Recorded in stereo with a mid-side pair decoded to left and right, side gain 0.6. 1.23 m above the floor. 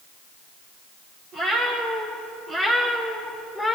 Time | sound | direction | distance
1.3 | a cat meowing | 45° right | 3 m